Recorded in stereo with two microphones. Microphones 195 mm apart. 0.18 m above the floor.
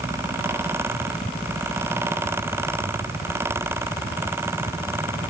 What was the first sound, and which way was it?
Only background noise.